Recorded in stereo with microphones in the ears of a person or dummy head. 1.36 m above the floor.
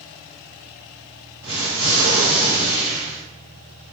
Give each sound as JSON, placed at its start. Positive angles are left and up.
{"t": 1.4, "sound": "an explosion", "side_deg": -65, "distance_m": 1.7}